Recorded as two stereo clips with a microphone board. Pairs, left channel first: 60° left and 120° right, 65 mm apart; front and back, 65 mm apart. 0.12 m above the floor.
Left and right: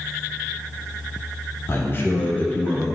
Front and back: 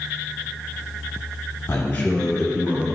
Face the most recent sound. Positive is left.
turn(degrees=130)